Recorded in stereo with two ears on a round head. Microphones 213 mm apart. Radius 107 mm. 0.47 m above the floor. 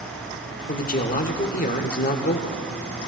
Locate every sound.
0.7 s a man speaking: 35° left (ahead or behind), 1.1 m